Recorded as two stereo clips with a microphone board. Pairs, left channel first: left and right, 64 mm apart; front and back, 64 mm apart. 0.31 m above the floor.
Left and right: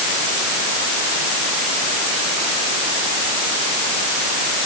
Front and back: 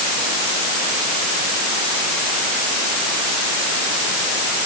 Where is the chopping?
I don't hear chopping.